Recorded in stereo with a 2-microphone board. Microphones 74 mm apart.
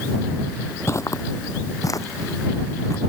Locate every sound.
0.9 s footsteps: 40° left (ahead or behind); by 3.0 s 45° left (ahead or behind)